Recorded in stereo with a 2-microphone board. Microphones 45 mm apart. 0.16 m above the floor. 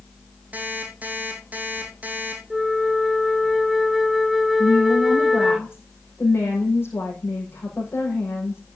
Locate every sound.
0.5 s an alarm clock: 35° right (ahead or behind), 4 m
2.5 s a flute: centre (ahead or behind), 0.5 m
4.6 s a woman speaking: 60° left (ahead or behind), 6.5 m